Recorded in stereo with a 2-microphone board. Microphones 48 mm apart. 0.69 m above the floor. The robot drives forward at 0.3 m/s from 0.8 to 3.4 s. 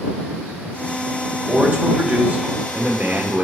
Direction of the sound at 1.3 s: 25° right (ahead or behind).